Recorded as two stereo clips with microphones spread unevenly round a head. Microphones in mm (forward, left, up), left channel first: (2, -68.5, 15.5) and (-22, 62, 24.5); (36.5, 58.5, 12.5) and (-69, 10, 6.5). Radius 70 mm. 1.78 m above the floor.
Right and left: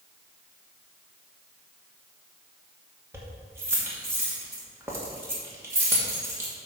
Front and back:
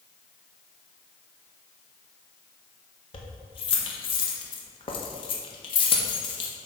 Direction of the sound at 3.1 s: 35° left.